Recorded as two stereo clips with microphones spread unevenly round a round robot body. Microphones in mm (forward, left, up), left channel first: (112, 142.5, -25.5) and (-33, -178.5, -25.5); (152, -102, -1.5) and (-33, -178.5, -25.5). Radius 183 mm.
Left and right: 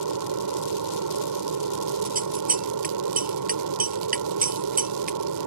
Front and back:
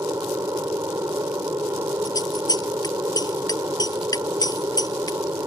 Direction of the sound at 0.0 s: 85° right.